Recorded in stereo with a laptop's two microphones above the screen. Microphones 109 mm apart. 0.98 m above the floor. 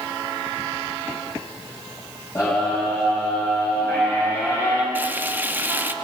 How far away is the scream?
About 5.5 m.